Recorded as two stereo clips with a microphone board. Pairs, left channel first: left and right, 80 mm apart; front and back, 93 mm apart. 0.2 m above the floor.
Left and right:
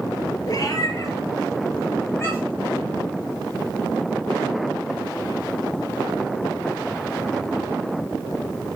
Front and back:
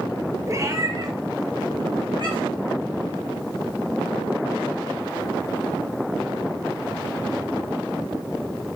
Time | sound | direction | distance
0.5 | a cat meowing | 125° left | 1.0 m